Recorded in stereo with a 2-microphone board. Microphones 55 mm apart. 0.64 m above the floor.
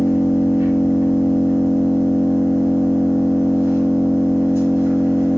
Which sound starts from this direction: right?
An engine running, at 0.0 s.